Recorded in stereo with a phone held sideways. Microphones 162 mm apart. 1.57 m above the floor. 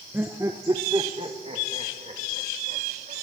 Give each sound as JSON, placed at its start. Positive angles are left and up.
{"t": 0.1, "sound": "laughter", "side_deg": -10, "distance_m": 1.0}